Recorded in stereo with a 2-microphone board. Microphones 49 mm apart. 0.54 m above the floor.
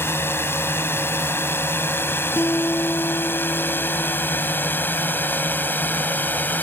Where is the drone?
55° left (ahead or behind); by 6.6 s 40° left (ahead or behind).